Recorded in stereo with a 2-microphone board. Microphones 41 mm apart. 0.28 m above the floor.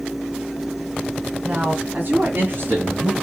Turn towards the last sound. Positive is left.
turn(degrees=-55)  # may be behind; listen again after turning